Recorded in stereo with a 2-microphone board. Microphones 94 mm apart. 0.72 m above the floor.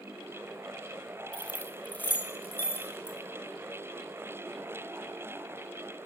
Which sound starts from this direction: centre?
Keys jangling, at 1.3 s.